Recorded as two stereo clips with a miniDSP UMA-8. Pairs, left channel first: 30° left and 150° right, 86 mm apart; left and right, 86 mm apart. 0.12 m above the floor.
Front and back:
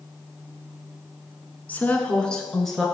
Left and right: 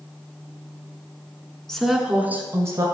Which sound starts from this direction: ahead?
A woman speaking, at 1.7 s.